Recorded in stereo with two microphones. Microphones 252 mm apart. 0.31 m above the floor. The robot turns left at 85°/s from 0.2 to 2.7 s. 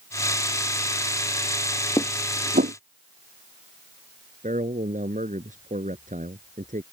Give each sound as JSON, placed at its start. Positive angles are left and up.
{"t": 2.0, "sound": "dishes clattering", "side_deg": 15}
{"t": 4.4, "sound": "a man speaking", "side_deg": -30}